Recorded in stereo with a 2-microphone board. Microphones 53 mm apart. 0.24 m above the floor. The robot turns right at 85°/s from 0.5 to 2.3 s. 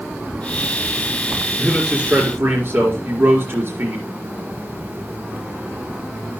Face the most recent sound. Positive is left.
turn(degrees=-130)